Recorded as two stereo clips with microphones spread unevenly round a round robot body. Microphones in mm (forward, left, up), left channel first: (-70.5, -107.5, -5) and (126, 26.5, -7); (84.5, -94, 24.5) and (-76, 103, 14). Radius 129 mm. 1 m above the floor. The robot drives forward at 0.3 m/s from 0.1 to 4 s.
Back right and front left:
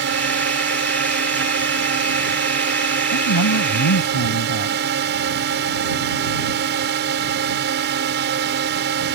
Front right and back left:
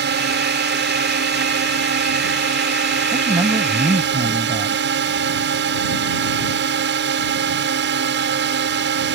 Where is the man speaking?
155° right; by 4.8 s 160° right.